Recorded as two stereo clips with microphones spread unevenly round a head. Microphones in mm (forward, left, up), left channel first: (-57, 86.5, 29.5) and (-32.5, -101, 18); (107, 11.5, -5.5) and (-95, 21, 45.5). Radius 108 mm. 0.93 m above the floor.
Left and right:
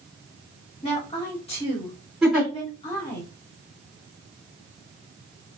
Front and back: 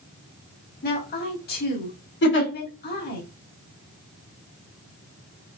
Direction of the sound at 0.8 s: 30° left.